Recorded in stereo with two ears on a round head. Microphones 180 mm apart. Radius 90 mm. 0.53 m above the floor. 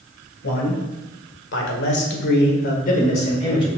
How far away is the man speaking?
About 2 m.